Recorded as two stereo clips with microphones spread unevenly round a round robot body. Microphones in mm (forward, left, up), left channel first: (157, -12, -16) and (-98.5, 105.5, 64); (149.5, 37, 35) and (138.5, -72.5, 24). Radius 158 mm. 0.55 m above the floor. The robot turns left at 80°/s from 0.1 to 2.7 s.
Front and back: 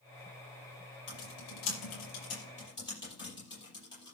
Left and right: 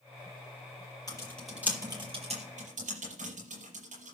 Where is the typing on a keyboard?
30° left, 6 m; by 4.2 s 105° right, 6 m.